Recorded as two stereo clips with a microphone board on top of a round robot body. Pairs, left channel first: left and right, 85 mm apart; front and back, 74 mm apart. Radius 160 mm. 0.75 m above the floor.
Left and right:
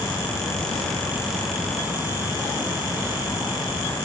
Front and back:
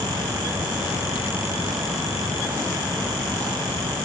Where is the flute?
No flute in this recording.